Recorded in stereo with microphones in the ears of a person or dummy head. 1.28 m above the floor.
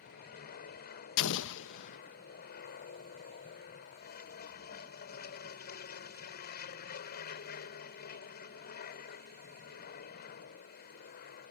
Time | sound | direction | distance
0.0 | an aircraft | 50° left (ahead or behind) | ?
1.2 | an explosion | 70° left (ahead or behind) | ?